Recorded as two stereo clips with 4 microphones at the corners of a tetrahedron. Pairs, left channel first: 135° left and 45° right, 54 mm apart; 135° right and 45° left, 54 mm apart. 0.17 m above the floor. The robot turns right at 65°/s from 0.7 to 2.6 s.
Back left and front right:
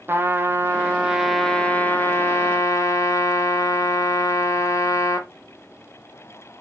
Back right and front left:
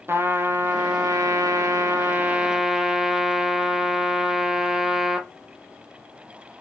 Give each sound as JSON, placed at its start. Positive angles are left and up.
{"t": 0.1, "sound": "a trumpet", "azimuth_deg": 0, "distance_m": 1.4}